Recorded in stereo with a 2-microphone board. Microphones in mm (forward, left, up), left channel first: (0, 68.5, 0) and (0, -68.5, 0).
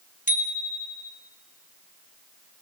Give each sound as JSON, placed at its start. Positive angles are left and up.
{"t": 0.3, "sound": "a bicycle bell", "side_deg": 75, "distance_m": 2.0}